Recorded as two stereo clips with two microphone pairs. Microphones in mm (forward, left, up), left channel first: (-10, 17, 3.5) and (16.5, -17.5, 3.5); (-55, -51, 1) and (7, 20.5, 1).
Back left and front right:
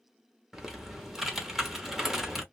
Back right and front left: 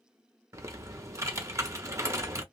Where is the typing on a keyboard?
25° left, 1.0 m.